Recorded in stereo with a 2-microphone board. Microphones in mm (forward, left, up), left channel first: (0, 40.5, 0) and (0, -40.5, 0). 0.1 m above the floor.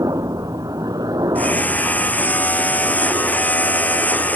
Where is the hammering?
20° left (ahead or behind).